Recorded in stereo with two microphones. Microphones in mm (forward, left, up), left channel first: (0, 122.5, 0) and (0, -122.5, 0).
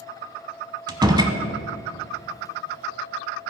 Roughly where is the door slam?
Centre.